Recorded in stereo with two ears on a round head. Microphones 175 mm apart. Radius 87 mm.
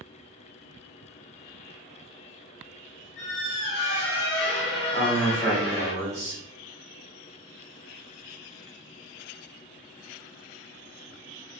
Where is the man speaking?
15° left (ahead or behind), 1.1 m.